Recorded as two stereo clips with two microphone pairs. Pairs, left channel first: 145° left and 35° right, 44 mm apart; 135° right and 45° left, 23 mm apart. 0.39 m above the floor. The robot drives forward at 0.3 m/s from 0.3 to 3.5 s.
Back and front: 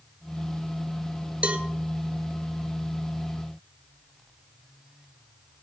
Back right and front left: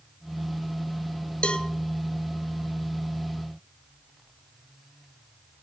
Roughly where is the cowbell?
Right.